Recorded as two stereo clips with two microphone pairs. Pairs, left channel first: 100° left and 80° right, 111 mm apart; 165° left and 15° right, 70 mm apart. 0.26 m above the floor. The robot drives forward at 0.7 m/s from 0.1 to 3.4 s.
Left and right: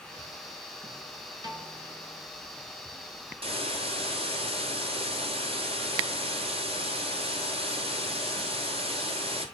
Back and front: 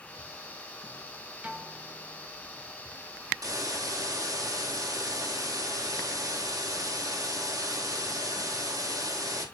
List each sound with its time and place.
1.4 s a piano: 70° right, 1.8 m; by 2.3 s 100° right, 1.8 m
3.4 s a hiss: 45° right, 3 m